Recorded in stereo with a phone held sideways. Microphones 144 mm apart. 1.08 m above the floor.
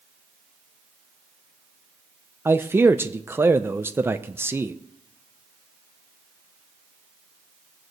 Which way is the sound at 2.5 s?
15° right (ahead or behind).